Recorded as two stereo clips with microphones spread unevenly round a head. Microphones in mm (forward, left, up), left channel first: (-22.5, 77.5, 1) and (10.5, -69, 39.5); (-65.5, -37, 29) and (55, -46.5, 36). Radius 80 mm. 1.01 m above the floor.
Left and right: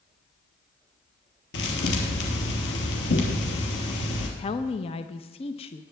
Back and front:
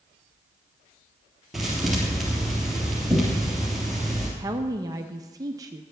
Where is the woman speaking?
60° left, 0.7 m.